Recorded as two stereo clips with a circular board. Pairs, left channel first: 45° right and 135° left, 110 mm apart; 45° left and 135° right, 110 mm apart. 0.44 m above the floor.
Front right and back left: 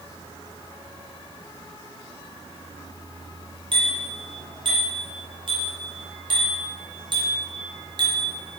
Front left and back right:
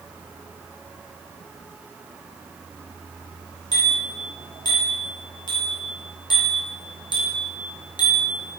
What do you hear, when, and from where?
3.7 s a bicycle bell: 95° left, 7.5 m; by 8.4 s 90° left, 4.5 m